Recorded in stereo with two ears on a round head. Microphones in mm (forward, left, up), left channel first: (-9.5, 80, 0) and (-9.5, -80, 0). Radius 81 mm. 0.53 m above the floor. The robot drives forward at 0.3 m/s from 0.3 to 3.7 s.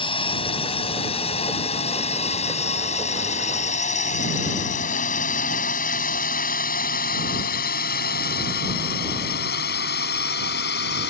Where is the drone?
30° left (ahead or behind); by 11.1 s 65° left (ahead or behind).